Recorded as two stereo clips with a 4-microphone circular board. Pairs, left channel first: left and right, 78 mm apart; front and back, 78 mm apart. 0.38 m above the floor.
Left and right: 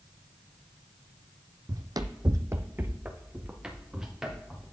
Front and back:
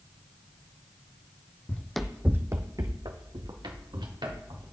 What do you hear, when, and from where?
1.7 s running footsteps: 65° right, 0.8 m; by 4.7 s 175° right, 3 m